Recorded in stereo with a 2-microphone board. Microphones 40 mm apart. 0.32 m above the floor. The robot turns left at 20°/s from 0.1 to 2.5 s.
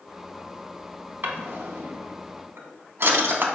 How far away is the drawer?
About 0.5 m.